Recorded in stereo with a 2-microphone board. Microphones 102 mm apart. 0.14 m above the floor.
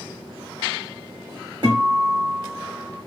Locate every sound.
1.6 s a guitar: 45° right (ahead or behind), 2.5 m